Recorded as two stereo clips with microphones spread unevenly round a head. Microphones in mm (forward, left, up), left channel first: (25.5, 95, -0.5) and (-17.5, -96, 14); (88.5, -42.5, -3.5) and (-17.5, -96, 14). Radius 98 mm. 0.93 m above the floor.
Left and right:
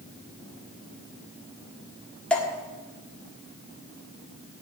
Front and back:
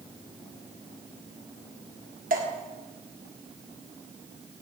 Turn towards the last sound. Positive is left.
turn(degrees=160)